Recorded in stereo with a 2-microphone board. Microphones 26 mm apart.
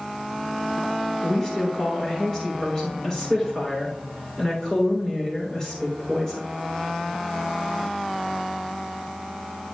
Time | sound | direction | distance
1.2 | a woman speaking | 15° left (ahead or behind) | 3.5 m